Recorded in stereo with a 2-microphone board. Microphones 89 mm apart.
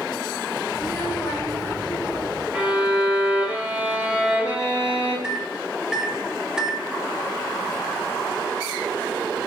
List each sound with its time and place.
0.7 s a child speaking: 35° left (ahead or behind), 3.5 m; by 2.4 s 45° left (ahead or behind), 2 m
2.5 s a violin: 15° right (ahead or behind), 4 m
5.2 s a microwave: 10° right (ahead or behind), 0.8 m